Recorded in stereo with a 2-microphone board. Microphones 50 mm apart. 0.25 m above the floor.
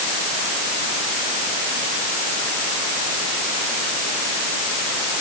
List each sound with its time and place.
Only background noise.